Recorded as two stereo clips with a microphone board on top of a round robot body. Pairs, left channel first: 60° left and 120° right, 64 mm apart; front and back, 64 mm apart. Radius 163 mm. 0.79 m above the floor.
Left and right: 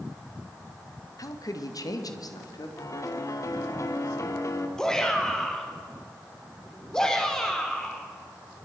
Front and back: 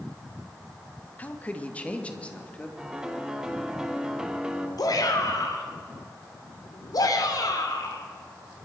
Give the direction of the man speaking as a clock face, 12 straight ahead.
10 o'clock.